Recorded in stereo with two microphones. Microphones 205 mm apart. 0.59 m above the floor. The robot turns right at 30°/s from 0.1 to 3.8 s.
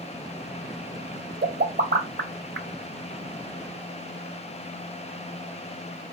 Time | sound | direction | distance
1.4 | a pop | 55° right (ahead or behind) | 0.7 m